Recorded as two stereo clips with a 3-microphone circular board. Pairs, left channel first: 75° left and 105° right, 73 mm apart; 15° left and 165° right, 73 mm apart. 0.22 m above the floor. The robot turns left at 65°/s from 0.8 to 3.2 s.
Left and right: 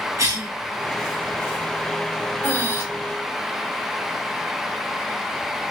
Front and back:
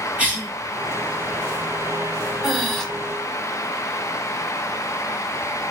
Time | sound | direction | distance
0.2 | a cough | 100° right | 2.5 m
2.4 | breathing | 120° left | 0.9 m